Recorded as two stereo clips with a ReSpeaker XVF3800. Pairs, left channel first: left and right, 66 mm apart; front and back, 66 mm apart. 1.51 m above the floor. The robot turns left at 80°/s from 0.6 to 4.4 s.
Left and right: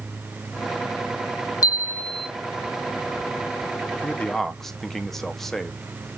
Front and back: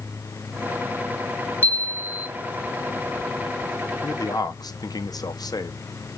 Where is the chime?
60° left, 0.7 m; by 2.3 s 10° left, 0.7 m.